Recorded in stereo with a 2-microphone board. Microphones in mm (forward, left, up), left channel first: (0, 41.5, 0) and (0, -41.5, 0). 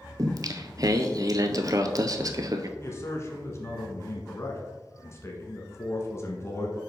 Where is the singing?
45° right (ahead or behind), 0.6 m.